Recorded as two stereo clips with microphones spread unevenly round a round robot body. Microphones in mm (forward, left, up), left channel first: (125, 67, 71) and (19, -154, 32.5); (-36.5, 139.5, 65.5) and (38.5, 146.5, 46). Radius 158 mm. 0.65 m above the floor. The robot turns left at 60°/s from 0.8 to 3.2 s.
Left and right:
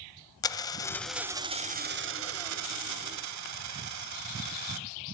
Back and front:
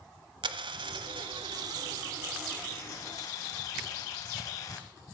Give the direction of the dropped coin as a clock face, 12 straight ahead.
12 o'clock.